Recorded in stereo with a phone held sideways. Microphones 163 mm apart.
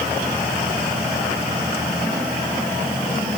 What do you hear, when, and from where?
Only background noise.